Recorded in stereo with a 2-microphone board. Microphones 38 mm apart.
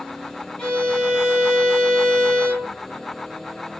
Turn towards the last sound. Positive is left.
turn(degrees=25)  # may be behind; listen again after turning